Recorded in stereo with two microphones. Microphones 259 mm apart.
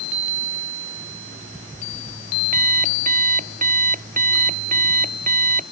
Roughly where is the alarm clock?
Right.